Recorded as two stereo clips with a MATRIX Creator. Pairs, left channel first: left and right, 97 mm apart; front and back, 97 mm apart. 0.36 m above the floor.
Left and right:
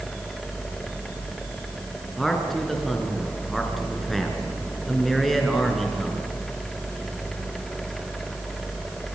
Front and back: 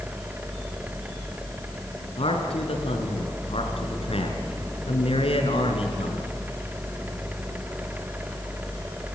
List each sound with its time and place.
2.2 s a man speaking: straight ahead, 4 m